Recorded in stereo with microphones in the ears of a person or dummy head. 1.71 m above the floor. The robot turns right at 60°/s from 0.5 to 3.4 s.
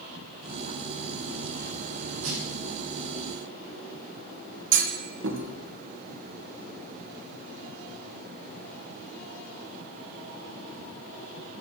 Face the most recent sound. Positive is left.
turn(degrees=-75)  # may be behind; listen again after turning